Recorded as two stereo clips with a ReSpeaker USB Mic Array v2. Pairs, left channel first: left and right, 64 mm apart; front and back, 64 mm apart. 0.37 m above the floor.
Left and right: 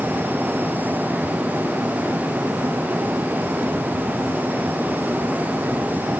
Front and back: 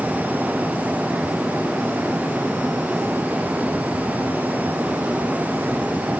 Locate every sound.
Only background noise.